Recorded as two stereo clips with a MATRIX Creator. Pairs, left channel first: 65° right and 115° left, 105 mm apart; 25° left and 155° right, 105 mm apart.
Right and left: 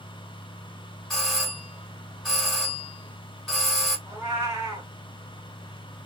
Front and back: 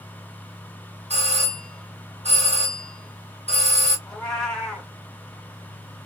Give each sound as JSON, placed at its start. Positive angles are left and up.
{"t": 1.1, "sound": "a doorbell", "azimuth_deg": -155, "distance_m": 1.6}
{"t": 4.1, "sound": "a cat meowing", "azimuth_deg": 105, "distance_m": 1.5}